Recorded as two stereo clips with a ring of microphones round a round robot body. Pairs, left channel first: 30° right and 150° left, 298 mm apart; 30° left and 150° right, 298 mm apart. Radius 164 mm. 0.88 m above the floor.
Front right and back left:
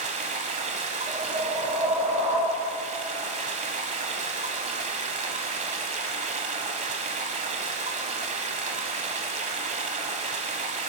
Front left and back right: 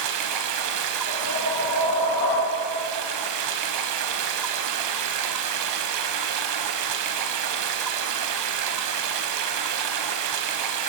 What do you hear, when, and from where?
0.0 s running water: 145° right, 1.0 m
1.1 s a whoosh: 85° left, 4.5 m